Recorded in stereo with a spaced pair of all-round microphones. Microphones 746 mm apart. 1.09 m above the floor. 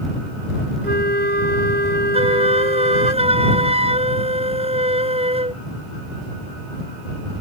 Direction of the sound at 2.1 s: 10° right (ahead or behind).